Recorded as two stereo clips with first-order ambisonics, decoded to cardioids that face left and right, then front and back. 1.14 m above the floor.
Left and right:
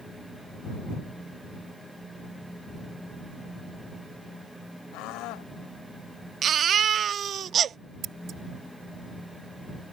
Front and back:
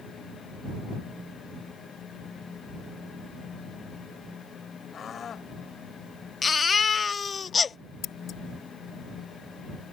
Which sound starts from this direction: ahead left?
A scream, at 4.9 s.